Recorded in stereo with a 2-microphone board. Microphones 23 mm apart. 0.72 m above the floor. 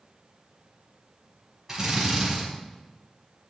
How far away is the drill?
About 6 m.